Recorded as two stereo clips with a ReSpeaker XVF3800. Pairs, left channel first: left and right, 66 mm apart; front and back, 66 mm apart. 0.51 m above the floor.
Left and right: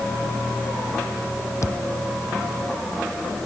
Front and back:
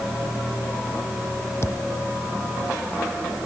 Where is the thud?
45° left.